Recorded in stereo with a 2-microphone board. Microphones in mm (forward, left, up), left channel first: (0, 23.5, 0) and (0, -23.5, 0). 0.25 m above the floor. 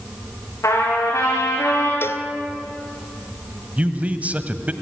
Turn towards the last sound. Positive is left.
turn(degrees=-30)  # may be behind; listen again after turning